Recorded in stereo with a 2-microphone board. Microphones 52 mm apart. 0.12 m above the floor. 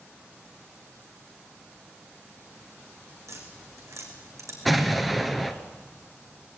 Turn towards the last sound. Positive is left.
turn(degrees=0)  # may be behind; listen again after turning